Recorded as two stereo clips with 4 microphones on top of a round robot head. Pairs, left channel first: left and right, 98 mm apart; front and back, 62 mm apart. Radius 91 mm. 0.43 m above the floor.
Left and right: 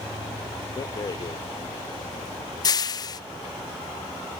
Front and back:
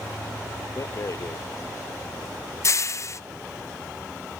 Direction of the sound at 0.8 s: 40° left.